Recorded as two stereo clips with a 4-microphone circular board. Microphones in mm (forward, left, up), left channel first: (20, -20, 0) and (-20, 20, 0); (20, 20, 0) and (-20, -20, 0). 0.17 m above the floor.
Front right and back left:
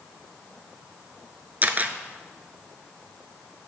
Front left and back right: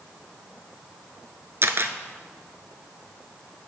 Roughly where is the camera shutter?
Behind.